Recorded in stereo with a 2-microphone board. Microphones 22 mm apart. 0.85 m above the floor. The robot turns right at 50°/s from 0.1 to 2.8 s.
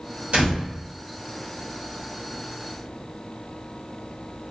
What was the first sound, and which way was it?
A door slam, 60° right (ahead or behind).